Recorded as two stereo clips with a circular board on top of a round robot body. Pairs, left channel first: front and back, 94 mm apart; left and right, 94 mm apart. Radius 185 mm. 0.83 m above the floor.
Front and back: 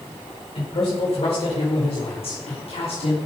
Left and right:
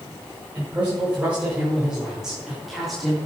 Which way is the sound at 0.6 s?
20° right.